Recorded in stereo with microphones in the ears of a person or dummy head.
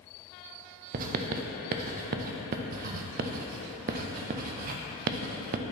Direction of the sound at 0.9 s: 45° right (ahead or behind).